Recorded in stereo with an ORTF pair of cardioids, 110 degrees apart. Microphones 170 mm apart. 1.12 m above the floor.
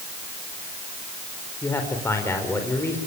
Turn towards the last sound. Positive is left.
turn(degrees=15)